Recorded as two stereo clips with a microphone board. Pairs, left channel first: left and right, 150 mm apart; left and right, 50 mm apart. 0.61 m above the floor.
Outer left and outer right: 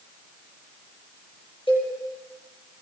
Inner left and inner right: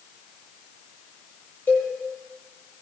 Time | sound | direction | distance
1.7 | a cowbell | 35° left (ahead or behind) | 9 m